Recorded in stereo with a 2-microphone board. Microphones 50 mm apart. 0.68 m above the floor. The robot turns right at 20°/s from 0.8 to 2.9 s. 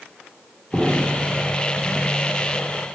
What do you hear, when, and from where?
0.7 s an explosion: 15° right (ahead or behind), 2 m; by 1.4 s 25° right (ahead or behind), 2 m